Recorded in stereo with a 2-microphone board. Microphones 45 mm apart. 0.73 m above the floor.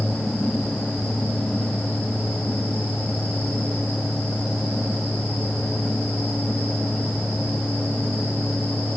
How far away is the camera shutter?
I don't hear a camera shutter.